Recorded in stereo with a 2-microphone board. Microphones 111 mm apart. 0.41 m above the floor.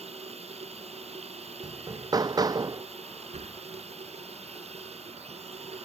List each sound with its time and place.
0.0 s running water: 65° right (ahead or behind)
1.6 s hammering: 35° right (ahead or behind)
3.3 s a sliding door: 75° right (ahead or behind)